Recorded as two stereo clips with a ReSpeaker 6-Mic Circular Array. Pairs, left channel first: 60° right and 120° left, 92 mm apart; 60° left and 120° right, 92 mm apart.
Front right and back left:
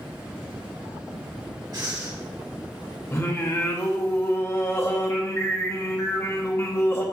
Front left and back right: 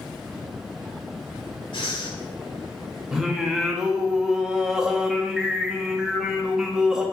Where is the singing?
40° right, 0.9 m.